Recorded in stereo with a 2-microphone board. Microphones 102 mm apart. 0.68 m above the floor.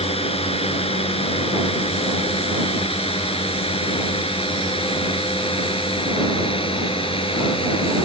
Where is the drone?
75° left (ahead or behind); by 8.1 s 65° left (ahead or behind).